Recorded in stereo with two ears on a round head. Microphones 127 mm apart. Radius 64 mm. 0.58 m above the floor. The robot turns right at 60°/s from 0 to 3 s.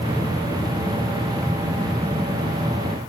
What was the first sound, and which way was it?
Only background noise.